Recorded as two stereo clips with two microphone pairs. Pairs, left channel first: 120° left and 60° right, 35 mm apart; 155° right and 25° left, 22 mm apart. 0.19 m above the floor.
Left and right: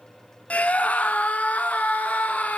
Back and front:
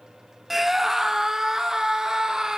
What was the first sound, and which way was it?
A scream, 100° left.